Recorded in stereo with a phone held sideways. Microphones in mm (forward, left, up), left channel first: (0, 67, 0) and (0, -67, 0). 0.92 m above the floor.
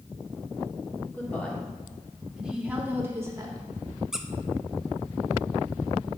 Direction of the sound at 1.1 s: 15° left (ahead or behind).